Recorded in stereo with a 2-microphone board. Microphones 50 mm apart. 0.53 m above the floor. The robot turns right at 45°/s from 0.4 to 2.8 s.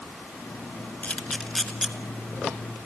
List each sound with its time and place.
1.0 s a camera shutter: 30° left (ahead or behind), 1.4 m; by 1.9 s 10° right (ahead or behind), 1.4 m